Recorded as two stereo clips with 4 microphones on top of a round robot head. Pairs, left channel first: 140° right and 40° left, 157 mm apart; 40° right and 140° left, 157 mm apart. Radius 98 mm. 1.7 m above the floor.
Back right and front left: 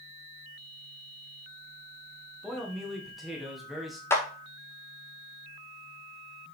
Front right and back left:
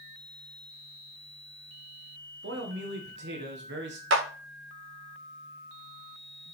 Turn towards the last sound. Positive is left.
turn(degrees=145)